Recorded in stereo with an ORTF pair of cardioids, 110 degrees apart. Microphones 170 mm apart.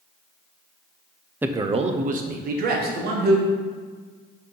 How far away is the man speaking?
About 0.7 m.